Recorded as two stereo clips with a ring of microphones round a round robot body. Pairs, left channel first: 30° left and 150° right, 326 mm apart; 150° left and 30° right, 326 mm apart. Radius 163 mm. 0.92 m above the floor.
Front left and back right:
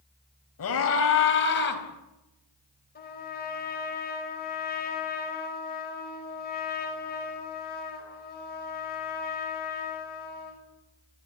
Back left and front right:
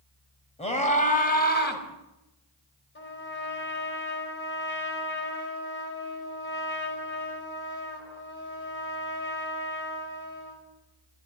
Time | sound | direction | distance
0.6 | a scream | 80° left | 4.5 m
3.0 | a trumpet | 90° left | 5 m